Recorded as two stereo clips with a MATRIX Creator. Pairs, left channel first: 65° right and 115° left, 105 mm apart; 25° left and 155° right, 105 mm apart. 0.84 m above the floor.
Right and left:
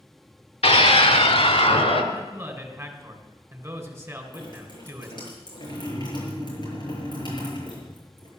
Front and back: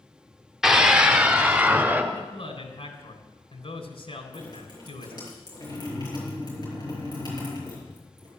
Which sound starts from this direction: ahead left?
A man speaking, at 2.1 s.